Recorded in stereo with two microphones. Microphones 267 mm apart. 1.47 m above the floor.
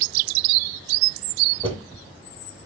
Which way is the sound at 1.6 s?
20° right (ahead or behind).